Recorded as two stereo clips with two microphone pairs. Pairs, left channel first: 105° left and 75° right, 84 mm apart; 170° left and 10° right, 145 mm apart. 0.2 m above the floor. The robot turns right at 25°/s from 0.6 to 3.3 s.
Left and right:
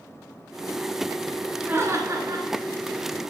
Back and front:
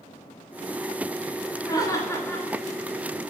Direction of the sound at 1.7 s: 135° right.